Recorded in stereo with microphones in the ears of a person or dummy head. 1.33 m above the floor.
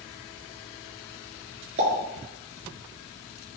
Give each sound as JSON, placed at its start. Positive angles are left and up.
{"t": 1.8, "sound": "a pop", "side_deg": -40, "distance_m": 2.5}